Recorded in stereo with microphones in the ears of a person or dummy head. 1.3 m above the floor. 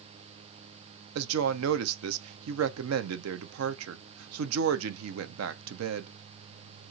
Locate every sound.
1.1 s a woman speaking: 85° right, 0.6 m